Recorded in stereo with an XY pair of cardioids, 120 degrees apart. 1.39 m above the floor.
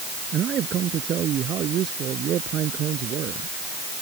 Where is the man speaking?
50° right; by 3.5 s 60° right.